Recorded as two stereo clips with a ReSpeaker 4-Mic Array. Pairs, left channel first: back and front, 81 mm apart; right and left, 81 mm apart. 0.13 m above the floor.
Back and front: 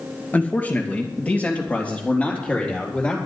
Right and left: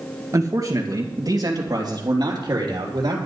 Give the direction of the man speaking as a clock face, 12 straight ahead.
8 o'clock.